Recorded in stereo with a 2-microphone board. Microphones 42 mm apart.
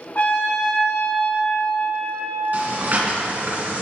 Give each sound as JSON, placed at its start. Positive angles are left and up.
{"t": 0.1, "sound": "a trumpet", "side_deg": 40, "distance_m": 2.5}
{"t": 2.5, "sound": "breathing", "side_deg": -50, "distance_m": 1.5}